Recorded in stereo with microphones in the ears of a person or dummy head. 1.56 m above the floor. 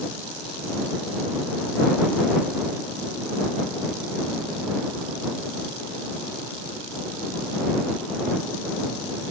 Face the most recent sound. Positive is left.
No sound to turn to.